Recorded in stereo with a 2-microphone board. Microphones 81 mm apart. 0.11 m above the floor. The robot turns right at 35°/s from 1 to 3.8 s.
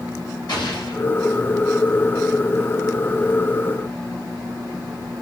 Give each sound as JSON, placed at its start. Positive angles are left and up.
{"t": 0.5, "sound": "an explosion", "side_deg": 65, "distance_m": 4.5}